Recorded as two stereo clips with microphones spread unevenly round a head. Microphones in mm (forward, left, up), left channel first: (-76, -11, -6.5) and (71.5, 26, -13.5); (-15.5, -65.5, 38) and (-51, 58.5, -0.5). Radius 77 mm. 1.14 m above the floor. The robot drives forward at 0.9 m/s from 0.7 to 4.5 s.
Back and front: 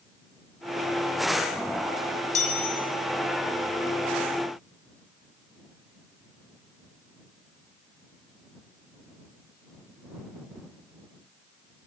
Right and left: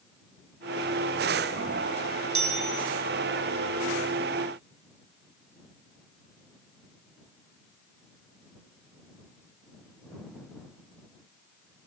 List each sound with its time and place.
2.4 s a chime: 150° left, 5.5 m; by 2.8 s 155° left, 6 m